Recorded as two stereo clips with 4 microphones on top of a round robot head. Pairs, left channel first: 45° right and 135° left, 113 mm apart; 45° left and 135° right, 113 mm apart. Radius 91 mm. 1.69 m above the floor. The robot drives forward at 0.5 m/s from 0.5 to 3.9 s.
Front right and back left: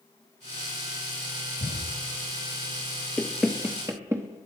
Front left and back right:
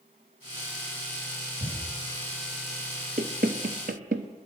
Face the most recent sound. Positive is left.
turn(degrees=-155)